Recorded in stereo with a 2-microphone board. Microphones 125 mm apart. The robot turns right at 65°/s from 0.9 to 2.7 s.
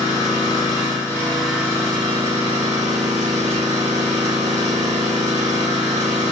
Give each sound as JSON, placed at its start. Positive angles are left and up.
{"t": 0.0, "sound": "an engine running", "azimuth_deg": 145, "distance_m": 1.4}